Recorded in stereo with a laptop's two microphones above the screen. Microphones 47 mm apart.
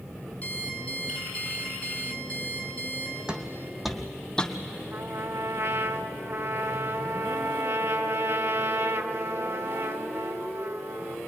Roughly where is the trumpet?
Right.